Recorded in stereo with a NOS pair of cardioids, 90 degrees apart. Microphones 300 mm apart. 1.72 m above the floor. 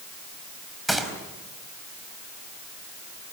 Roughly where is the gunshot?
Ahead.